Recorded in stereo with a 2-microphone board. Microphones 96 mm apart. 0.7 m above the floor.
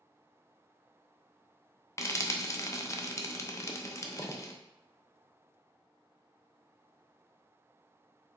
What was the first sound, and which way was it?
Frying, 30° left (ahead or behind).